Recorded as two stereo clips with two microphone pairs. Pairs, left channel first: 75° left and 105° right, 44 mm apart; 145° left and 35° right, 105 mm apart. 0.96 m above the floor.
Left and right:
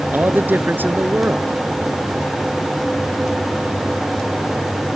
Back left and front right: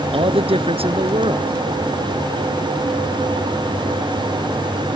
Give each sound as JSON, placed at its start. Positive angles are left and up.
{"t": 0.1, "sound": "a man speaking", "azimuth_deg": -60}